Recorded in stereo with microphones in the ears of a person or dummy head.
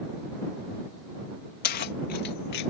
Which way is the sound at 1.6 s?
50° left (ahead or behind).